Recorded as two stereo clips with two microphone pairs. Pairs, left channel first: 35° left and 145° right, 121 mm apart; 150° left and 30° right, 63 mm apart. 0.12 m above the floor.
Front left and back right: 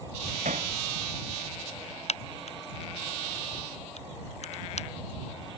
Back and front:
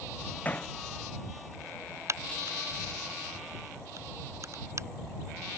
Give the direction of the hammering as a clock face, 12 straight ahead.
5 o'clock.